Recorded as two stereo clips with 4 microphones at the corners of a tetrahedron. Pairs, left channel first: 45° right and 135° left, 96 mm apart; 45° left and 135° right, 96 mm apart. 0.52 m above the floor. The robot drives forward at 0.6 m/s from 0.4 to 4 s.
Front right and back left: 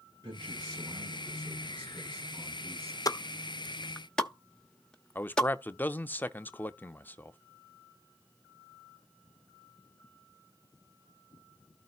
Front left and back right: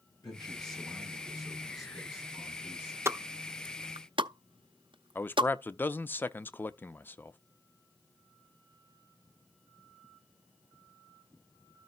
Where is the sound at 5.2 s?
Straight ahead, 0.7 m.